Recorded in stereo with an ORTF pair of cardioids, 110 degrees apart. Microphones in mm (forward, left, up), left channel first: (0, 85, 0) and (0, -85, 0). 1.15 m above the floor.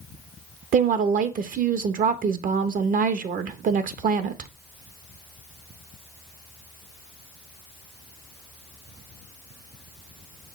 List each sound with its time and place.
0.7 s a woman speaking: 55° right, 0.9 m